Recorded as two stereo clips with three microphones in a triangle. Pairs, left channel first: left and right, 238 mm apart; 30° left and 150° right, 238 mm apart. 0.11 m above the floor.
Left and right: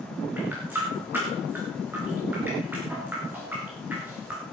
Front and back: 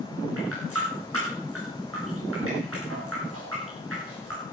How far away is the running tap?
About 7 m.